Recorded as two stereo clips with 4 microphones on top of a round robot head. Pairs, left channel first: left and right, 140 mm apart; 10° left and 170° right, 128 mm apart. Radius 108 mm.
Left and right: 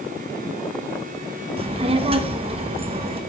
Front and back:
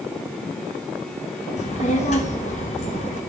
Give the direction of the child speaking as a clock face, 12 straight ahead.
1 o'clock.